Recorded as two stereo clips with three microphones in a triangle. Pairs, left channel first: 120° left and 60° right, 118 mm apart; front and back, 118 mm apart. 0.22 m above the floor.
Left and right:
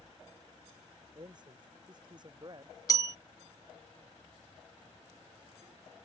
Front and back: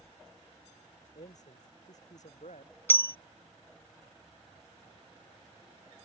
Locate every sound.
1.1 s a man speaking: 10° right
2.9 s a bell: 65° left